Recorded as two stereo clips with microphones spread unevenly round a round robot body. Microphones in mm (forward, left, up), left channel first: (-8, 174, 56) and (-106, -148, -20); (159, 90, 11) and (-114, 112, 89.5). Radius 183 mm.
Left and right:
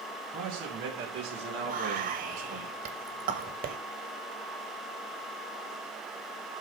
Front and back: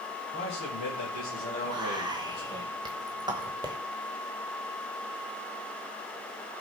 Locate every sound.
0.3 s a man speaking: 45° right, 4.5 m; by 2.6 s 70° right, 3 m
1.6 s whispering: 95° right, 1.2 m